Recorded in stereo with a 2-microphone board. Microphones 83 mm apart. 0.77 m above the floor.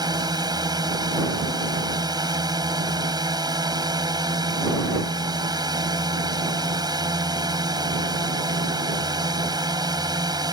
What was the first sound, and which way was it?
A drone, 55° right (ahead or behind).